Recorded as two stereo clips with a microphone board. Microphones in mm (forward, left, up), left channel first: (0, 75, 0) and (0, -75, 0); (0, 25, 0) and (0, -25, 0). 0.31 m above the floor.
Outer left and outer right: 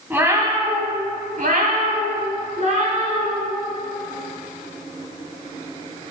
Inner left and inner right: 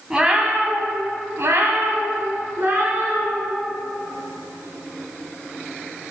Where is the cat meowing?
15° right (ahead or behind), 1.0 m; by 3.5 s 45° right (ahead or behind), 2.5 m.